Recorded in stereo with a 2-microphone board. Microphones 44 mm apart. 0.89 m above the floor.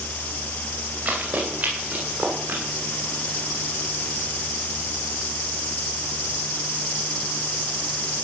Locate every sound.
1.1 s running footsteps: 40° right (ahead or behind), 9.5 m; by 2.6 s 45° right (ahead or behind), 10 m